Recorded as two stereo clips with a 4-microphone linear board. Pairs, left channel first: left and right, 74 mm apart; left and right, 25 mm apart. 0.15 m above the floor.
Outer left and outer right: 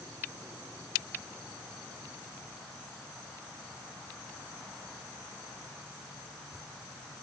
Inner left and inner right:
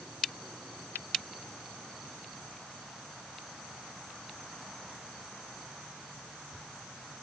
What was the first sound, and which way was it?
Only background noise.